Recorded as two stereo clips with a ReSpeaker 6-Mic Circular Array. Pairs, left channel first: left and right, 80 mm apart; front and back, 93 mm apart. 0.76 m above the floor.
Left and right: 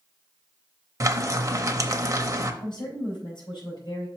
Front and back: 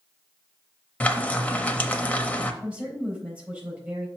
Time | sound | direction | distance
1.0 | frying | 70° right | 0.7 m
2.6 | a woman speaking | 105° left | 4 m